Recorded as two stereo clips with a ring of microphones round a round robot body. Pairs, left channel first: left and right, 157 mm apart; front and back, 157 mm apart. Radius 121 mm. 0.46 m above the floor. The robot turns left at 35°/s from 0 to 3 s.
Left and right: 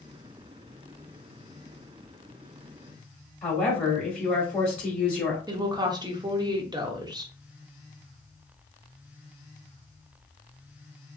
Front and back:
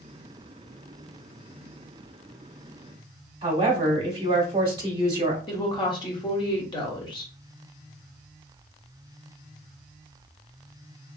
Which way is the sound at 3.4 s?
165° left.